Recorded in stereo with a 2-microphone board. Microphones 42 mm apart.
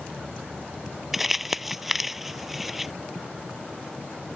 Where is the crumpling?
5° right (ahead or behind).